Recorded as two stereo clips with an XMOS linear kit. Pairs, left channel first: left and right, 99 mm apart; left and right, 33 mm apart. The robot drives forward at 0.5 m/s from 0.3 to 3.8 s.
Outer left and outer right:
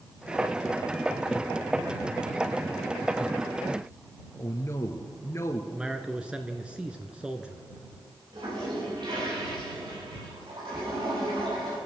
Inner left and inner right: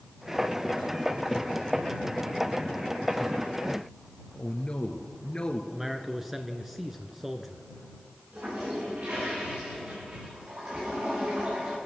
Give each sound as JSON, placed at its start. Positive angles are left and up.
{"t": 4.3, "sound": "a man speaking", "side_deg": 30, "distance_m": 1.7}
{"t": 5.7, "sound": "a man speaking", "side_deg": -10, "distance_m": 1.4}
{"t": 8.3, "sound": "a toilet flushing", "side_deg": -50, "distance_m": 8.5}